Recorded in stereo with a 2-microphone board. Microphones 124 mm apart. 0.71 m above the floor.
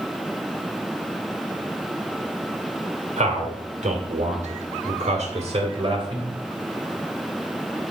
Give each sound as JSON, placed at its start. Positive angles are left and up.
{"t": 3.2, "sound": "a man speaking", "side_deg": -70, "distance_m": 2.5}